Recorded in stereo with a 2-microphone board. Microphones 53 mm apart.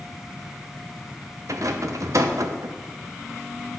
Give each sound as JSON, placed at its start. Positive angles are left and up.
{"t": 1.5, "sound": "a rattle", "side_deg": -80, "distance_m": 0.6}